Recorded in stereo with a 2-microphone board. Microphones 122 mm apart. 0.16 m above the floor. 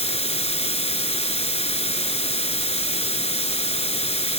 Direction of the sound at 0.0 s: 60° left (ahead or behind).